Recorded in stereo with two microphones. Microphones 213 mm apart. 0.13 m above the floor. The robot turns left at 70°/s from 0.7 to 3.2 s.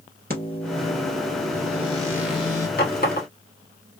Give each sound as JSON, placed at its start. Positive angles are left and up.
{"t": 0.3, "sound": "a microwave", "azimuth_deg": -65, "distance_m": 1.5}
{"t": 2.8, "sound": "a running tap", "side_deg": 45, "distance_m": 1.3}